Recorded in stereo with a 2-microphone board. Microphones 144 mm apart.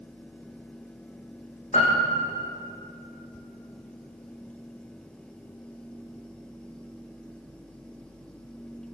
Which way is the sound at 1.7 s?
55° left (ahead or behind).